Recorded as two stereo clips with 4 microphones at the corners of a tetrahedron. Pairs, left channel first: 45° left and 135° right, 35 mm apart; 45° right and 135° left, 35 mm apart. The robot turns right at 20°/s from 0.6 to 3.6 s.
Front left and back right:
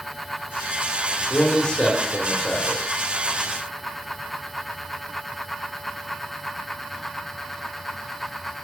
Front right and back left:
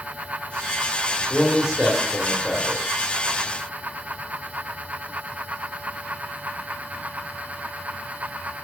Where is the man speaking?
65° left, 1.2 m; by 3.1 s 100° left, 1.2 m.